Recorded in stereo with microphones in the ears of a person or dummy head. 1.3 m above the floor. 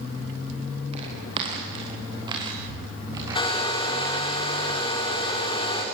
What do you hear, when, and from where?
0.9 s footsteps: 30° right (ahead or behind), 5.5 m; by 4.2 s 15° right (ahead or behind), 7.5 m
3.4 s a hair dryer: 25° left (ahead or behind), 4 m